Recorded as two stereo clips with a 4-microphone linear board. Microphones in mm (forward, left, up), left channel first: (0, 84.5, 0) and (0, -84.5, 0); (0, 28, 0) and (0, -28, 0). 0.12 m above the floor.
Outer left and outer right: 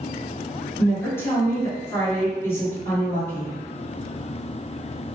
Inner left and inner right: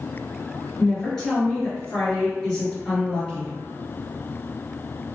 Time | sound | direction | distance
0.8 | a woman speaking | 15° left (ahead or behind) | 1.8 m